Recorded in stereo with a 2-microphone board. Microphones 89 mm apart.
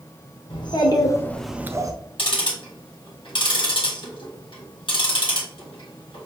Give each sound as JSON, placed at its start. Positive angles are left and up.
{"t": 0.5, "sound": "a child speaking", "side_deg": 60, "distance_m": 1.2}
{"t": 2.2, "sound": "ticking", "side_deg": 65, "distance_m": 1.6}